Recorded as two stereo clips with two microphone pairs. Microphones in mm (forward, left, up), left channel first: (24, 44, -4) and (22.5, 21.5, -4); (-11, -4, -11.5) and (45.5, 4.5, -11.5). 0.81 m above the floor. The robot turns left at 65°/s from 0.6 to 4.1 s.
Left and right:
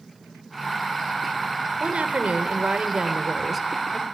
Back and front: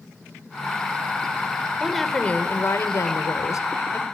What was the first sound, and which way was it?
A woman speaking, 70° right.